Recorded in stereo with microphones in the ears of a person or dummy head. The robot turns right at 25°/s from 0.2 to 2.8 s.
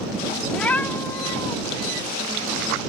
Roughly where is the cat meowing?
Centre.